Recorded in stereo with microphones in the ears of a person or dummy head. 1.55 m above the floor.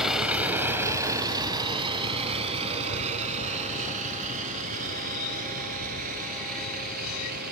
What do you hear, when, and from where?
0.0 s a vehicle: centre (ahead or behind); by 7.5 s 50° right (ahead or behind)